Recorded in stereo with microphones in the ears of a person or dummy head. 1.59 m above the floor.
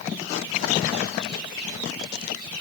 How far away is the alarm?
No alarm in this recording.